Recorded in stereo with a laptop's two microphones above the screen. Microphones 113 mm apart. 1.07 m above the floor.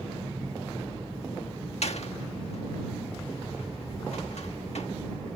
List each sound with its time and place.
1.8 s a door slam: 70° left (ahead or behind)